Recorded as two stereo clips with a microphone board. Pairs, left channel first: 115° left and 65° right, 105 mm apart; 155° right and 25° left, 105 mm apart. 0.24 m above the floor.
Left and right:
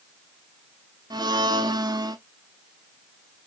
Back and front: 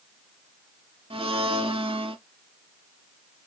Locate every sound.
1.1 s a blender: 15° right, 0.5 m